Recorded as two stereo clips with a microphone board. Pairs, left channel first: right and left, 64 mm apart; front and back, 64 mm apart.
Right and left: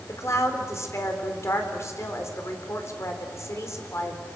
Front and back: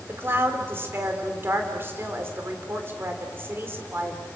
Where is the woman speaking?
130° right, 3.5 m.